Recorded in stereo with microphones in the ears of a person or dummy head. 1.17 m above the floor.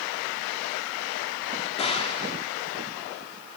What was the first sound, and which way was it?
A gunshot, 30° left (ahead or behind).